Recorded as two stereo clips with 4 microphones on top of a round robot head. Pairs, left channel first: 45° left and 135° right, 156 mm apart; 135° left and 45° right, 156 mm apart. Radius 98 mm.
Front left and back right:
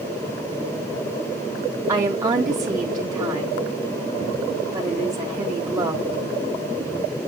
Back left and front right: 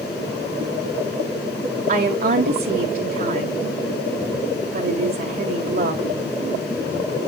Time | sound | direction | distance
1.9 | a woman speaking | 70° right | 1.6 m